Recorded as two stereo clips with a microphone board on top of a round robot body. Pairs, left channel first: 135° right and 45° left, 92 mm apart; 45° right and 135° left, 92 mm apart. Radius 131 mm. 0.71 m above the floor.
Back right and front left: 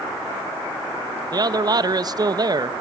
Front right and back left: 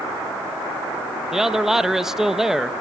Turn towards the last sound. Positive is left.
turn(degrees=55)